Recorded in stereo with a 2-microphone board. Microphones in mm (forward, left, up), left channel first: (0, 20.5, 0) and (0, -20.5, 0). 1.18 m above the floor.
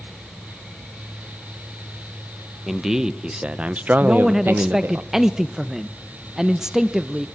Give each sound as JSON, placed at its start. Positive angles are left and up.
{"t": 2.7, "sound": "a man speaking", "side_deg": -10, "distance_m": 1.1}
{"t": 4.0, "sound": "a man speaking", "side_deg": -15, "distance_m": 0.6}